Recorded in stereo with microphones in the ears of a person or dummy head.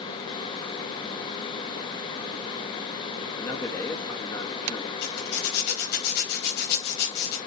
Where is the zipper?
55° left (ahead or behind), 4.5 m.